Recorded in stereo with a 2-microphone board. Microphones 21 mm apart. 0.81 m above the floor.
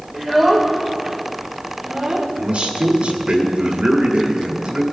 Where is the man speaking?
55° right (ahead or behind), 1.9 m.